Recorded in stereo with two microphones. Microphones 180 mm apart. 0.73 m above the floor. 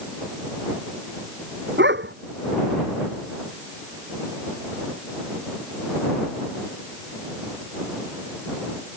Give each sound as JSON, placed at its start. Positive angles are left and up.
{"t": 1.8, "sound": "a dog barking", "side_deg": -90}